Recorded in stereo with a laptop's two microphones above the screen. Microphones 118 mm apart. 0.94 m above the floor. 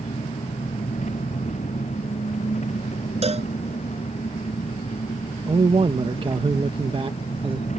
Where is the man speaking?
50° right (ahead or behind).